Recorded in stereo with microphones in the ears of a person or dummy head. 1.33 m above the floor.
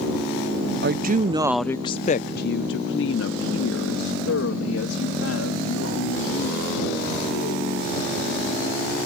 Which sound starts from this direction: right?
A woman speaking, at 0.8 s.